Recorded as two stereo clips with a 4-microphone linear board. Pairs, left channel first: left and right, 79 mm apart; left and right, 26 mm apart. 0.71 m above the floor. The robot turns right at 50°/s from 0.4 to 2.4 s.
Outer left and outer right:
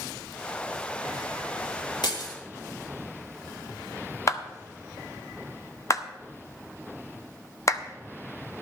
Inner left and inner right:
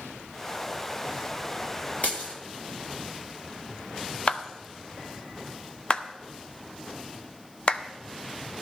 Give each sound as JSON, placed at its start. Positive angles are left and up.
{"t": 2.0, "sound": "breaking glass", "side_deg": 70, "distance_m": 2.0}
{"t": 4.3, "sound": "a clap", "side_deg": 40, "distance_m": 0.7}